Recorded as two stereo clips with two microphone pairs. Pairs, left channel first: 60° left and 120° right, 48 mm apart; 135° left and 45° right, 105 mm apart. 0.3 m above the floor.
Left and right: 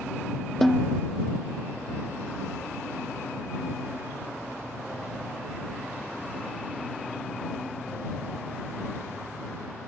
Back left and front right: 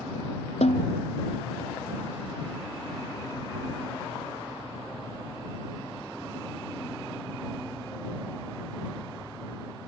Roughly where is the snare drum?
Behind left.